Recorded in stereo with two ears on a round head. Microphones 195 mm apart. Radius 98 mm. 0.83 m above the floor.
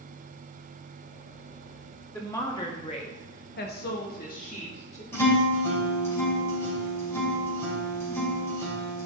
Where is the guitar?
10° left (ahead or behind), 4.5 m.